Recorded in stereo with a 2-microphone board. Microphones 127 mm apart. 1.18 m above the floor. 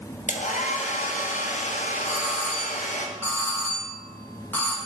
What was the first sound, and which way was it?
A hair dryer, 80° left.